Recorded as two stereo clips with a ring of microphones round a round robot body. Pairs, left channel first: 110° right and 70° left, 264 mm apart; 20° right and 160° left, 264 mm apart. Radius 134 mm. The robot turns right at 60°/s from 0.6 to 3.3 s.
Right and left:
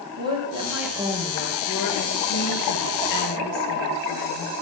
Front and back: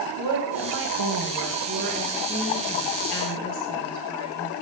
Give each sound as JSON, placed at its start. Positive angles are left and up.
{"t": 0.2, "sound": "a woman speaking", "azimuth_deg": 140, "distance_m": 8.5}